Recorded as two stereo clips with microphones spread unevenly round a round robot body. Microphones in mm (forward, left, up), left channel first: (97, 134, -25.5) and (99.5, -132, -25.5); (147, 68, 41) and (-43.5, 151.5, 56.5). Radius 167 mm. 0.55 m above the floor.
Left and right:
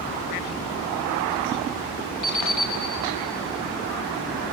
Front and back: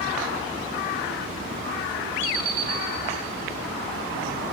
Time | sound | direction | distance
2.2 | an alarm clock | 80° left | 5 m